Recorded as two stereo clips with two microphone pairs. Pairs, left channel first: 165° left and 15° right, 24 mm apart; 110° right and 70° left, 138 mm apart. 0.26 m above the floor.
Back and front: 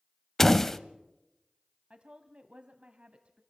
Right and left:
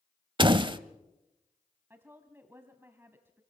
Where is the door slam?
90° left, 0.7 m.